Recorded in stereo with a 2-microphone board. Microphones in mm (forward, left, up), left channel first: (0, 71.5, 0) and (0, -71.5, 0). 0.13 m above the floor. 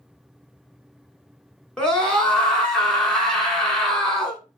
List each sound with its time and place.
1.8 s a scream: 5° left (ahead or behind), 1.5 m